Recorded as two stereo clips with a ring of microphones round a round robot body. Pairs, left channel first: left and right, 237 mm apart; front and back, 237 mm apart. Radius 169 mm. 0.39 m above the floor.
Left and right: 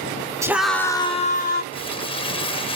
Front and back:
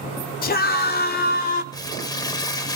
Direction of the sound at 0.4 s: 20° right.